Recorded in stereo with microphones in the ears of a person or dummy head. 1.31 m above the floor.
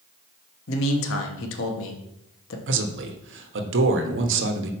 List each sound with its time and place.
0.7 s a man speaking: 70° left (ahead or behind), 1.1 m
2.7 s a man speaking: 65° right (ahead or behind), 1.0 m